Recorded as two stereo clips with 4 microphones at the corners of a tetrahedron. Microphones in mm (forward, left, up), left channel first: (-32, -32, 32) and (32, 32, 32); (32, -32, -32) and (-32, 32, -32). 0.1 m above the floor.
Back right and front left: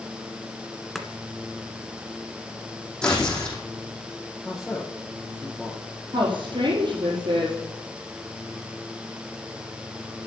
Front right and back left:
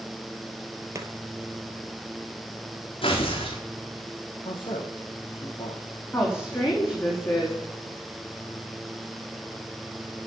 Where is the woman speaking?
15° left, 4 m.